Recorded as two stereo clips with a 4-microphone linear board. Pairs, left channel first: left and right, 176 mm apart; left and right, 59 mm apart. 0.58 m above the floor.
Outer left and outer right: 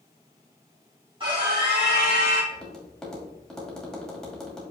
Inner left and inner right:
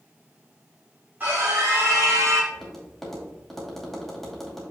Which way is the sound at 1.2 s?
30° right (ahead or behind).